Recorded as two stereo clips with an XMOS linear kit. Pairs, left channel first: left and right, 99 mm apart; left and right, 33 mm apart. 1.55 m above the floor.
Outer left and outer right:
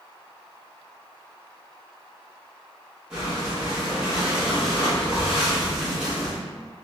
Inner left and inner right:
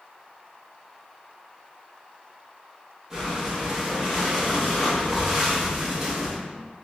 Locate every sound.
3.1 s breathing: 10° right (ahead or behind), 2.0 m